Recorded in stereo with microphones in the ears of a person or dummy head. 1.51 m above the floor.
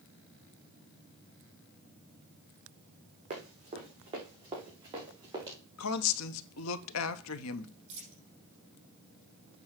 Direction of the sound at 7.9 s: 35° right (ahead or behind).